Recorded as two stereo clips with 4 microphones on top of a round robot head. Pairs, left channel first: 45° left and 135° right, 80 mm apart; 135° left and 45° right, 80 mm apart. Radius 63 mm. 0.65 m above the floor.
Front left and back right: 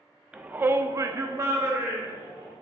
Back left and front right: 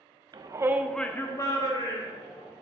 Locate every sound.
0.3 s a shout: 60° right, 0.9 m; by 2.5 s 160° left, 2.5 m